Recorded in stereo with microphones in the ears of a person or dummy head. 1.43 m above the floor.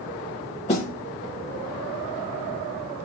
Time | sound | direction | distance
0.7 | a snare drum | 30° left (ahead or behind) | 1.4 m